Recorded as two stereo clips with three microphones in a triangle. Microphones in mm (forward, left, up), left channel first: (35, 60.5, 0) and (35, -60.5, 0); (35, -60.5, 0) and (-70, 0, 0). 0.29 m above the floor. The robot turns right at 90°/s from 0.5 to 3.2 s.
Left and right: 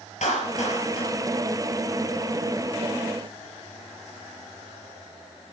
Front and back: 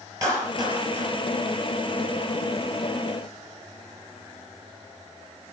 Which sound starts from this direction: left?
A clap, at 0.2 s.